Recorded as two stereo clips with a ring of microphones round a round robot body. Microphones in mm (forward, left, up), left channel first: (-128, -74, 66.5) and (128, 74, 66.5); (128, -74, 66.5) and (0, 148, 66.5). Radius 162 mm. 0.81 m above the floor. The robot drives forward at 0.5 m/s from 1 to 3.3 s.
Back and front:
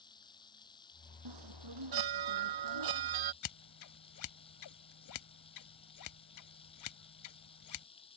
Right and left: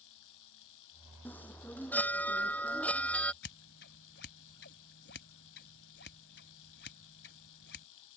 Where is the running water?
75° right.